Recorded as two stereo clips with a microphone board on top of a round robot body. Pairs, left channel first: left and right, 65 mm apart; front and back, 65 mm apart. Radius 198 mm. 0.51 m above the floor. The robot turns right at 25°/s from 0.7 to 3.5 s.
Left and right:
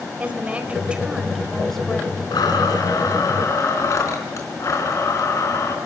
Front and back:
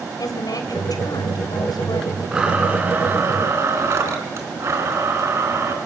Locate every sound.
0.2 s a woman speaking: 20° right, 3.5 m; by 2.2 s 15° left, 3.5 m
2.3 s a blender: 100° left, 3.5 m; by 5.8 s 130° left, 3.5 m